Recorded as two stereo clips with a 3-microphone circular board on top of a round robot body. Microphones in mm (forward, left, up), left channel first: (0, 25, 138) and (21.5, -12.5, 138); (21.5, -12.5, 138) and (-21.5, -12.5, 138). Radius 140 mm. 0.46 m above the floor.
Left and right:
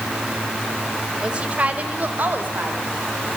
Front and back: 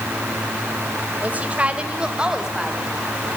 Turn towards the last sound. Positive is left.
turn(degrees=-100)